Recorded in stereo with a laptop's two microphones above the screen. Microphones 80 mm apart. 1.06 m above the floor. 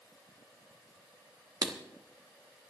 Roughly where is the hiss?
I don't hear a hiss.